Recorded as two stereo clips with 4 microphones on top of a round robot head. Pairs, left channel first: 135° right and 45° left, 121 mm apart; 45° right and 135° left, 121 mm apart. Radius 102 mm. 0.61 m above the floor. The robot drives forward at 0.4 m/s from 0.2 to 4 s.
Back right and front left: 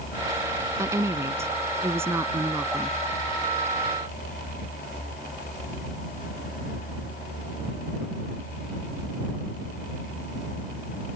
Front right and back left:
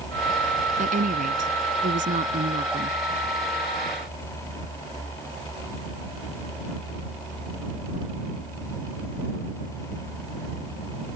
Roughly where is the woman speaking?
Behind left.